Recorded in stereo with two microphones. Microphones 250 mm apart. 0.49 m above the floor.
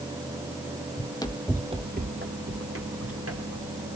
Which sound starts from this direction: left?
Running footsteps, at 1.0 s.